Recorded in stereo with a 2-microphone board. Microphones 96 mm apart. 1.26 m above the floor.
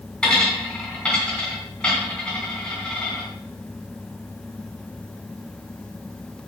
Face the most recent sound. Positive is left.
turn(degrees=10)  # may be behind; listen again after turning